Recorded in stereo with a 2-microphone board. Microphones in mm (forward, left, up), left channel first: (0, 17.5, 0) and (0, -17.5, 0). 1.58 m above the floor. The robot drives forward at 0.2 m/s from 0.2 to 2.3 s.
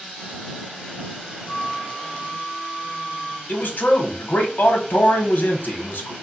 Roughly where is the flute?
Left.